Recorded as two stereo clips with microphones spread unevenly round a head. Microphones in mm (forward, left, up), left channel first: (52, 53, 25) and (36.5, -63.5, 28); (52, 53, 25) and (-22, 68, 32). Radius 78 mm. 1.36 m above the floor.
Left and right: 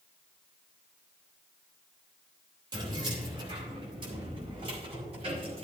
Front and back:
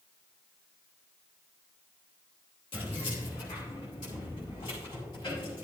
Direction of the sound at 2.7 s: 45° right.